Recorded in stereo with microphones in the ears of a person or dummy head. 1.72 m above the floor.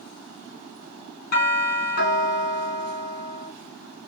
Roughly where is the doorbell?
Left.